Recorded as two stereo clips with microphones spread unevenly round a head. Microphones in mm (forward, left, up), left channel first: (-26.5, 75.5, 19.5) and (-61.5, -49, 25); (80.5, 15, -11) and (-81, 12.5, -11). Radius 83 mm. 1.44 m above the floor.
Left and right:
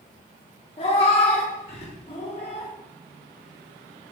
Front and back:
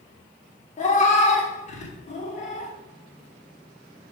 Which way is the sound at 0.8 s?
30° left.